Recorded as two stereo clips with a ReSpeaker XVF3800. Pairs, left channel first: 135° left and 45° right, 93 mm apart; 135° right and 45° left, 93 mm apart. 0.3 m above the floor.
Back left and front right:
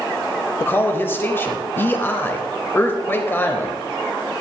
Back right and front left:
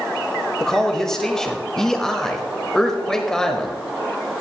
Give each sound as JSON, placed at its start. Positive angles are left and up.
{"t": 0.6, "sound": "a man speaking", "azimuth_deg": 150, "distance_m": 0.9}